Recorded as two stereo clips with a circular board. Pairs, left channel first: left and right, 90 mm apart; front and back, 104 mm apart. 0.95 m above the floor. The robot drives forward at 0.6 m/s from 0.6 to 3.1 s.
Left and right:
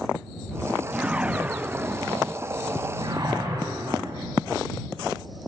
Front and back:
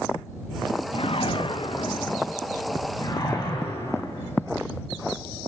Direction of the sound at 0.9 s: 15° right.